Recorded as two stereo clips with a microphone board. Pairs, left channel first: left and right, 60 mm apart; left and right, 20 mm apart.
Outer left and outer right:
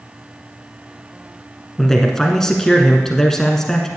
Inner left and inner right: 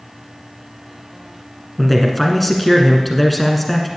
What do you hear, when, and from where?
1.8 s a man speaking: 5° left (ahead or behind), 1.2 m